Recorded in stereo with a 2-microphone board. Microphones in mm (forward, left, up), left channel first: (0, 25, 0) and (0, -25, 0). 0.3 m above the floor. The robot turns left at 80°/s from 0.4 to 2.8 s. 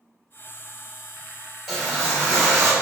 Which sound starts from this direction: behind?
A whoosh, at 1.7 s.